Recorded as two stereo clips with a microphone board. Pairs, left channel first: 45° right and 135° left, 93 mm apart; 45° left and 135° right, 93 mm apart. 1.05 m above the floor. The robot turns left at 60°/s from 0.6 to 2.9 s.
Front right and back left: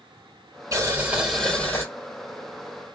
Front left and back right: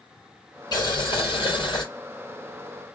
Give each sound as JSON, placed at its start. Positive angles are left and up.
{"t": 0.7, "sound": "boiling", "azimuth_deg": 85, "distance_m": 4.0}